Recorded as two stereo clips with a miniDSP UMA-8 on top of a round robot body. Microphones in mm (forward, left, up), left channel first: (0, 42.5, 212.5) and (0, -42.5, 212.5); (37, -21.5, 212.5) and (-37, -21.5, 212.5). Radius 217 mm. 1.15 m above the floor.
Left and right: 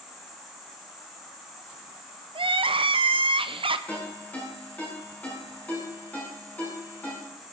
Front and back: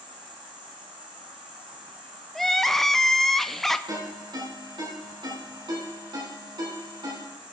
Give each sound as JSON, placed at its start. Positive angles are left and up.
{"t": 0.0, "sound": "an insect", "azimuth_deg": 180, "distance_m": 1.6}
{"t": 2.4, "sound": "crying", "azimuth_deg": -85, "distance_m": 0.8}
{"t": 3.9, "sound": "a ringtone", "azimuth_deg": 165, "distance_m": 9.0}